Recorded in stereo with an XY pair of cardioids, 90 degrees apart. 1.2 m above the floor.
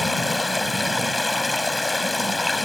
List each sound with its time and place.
0.0 s running water: 15° left